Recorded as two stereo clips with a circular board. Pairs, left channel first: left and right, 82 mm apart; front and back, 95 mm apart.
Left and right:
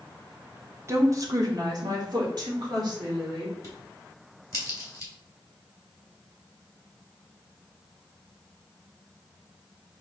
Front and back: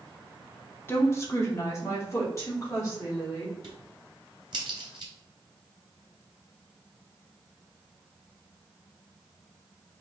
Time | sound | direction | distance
0.9 | a woman speaking | 55° right | 0.9 m
3.6 | a crack | 145° left | 1.7 m